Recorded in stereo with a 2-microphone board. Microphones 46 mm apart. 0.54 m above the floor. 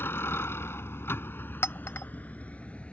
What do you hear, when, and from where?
0.0 s a vehicle: 70° left (ahead or behind); by 2.9 s 30° left (ahead or behind)
1.6 s a clink: 75° left (ahead or behind)